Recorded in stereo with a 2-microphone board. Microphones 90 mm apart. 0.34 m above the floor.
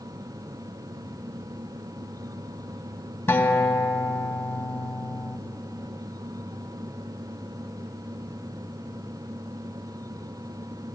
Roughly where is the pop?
I don't hear a pop.